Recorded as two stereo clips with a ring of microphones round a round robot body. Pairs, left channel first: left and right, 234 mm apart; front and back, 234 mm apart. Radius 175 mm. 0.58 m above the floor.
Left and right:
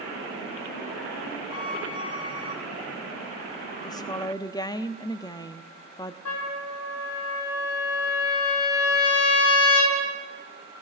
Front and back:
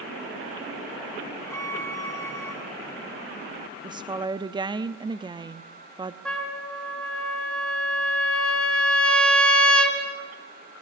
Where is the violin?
80° left, 3 m.